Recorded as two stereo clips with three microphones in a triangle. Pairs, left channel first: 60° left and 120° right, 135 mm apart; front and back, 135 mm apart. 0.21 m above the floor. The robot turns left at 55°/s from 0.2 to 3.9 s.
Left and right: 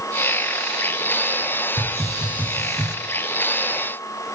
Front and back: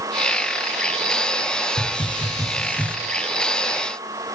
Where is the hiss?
15° right, 0.6 m; by 3.0 s 80° right, 0.6 m.